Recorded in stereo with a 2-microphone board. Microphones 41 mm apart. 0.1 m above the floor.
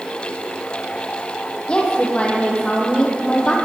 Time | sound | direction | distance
1.7 | a woman speaking | 25° left (ahead or behind) | 4 m